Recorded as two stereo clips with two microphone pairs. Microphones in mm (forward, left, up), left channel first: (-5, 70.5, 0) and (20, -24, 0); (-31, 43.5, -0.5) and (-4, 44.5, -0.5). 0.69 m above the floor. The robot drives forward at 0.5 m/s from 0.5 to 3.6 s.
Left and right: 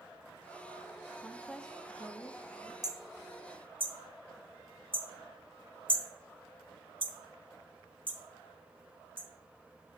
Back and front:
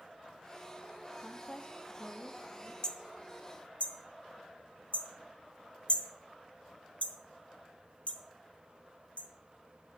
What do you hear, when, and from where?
1.2 s a woman speaking: 175° left, 0.8 m; by 2.7 s straight behind, 1.3 m
2.8 s hammering: 125° right, 0.6 m; by 9.3 s 145° right, 0.8 m